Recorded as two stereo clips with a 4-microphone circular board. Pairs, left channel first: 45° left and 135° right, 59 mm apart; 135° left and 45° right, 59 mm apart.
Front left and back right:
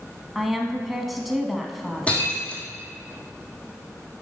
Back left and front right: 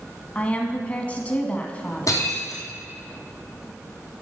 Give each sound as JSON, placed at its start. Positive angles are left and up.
{"t": 0.3, "sound": "a woman speaking", "azimuth_deg": 140, "distance_m": 1.1}
{"t": 2.1, "sound": "breaking glass", "azimuth_deg": 115, "distance_m": 2.5}